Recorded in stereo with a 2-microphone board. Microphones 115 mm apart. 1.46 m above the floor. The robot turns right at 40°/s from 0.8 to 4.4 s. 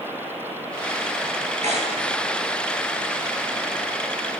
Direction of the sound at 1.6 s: 80° right.